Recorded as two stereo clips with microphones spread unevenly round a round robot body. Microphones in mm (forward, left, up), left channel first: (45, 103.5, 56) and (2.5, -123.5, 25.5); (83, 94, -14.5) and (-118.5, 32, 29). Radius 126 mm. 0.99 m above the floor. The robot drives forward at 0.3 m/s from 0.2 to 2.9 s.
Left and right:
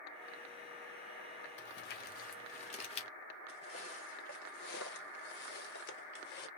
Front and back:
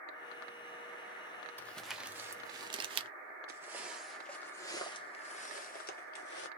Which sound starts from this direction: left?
Crumpling, at 1.6 s.